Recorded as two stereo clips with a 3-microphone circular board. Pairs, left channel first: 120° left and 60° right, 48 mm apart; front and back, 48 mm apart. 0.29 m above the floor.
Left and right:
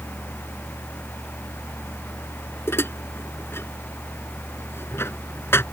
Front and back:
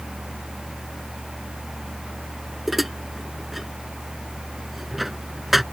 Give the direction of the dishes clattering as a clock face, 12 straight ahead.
9 o'clock.